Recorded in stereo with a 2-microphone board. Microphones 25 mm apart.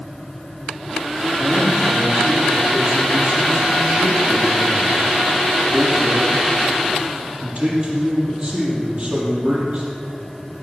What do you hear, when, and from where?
1.4 s a man speaking: 45° right (ahead or behind), 6 m